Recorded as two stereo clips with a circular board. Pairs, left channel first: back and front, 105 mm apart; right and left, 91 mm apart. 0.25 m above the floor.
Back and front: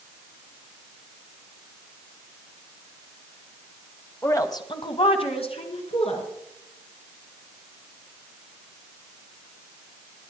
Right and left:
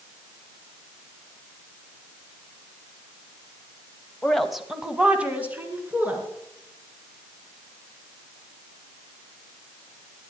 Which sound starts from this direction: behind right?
A woman speaking, at 4.2 s.